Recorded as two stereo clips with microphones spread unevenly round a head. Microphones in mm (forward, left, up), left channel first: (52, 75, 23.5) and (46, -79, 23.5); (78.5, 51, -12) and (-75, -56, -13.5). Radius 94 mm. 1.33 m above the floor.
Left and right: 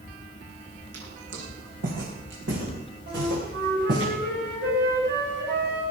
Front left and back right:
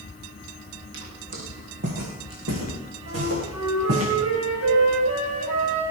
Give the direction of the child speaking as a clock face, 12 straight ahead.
I don't hear a child speaking.